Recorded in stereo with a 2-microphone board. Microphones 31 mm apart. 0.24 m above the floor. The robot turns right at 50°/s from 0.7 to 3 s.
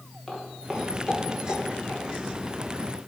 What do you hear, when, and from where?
0.3 s footsteps: 15° left (ahead or behind), 3 m; by 2.0 s 65° left (ahead or behind), 4.5 m